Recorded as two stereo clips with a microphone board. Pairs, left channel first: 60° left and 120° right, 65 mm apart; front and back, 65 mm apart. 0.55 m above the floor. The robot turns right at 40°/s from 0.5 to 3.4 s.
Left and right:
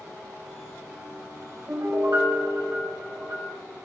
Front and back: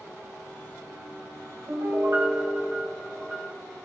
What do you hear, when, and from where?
1.7 s a piano: 160° right, 3.5 m; by 3.5 s 90° right, 3.5 m